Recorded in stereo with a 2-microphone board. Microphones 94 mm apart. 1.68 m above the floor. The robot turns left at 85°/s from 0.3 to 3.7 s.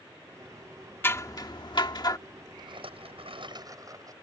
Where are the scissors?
150° left; by 2.2 s 55° left.